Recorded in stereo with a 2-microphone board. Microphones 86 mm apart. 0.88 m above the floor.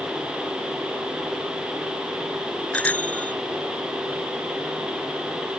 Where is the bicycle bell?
15° left (ahead or behind).